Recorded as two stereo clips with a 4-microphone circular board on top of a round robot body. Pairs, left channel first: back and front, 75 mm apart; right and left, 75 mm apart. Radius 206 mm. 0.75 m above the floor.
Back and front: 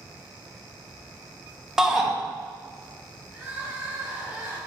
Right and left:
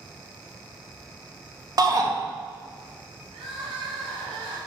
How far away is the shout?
About 1.0 m.